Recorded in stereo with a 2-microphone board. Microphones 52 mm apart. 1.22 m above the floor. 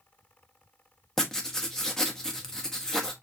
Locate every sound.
1.2 s writing: 10° left (ahead or behind), 0.9 m